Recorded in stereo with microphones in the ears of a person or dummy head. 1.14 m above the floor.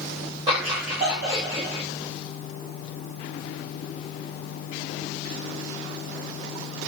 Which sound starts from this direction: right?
Laughter, at 0.5 s.